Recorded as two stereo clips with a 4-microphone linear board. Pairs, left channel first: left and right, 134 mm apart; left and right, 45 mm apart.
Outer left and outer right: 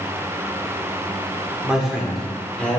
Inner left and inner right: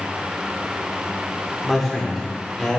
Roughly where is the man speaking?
Centre.